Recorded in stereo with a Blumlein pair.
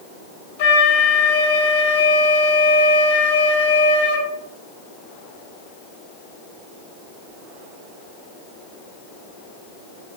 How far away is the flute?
About 1.7 m.